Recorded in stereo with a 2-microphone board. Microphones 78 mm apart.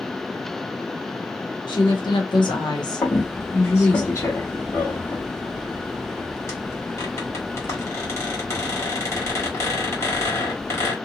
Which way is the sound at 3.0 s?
35° left (ahead or behind).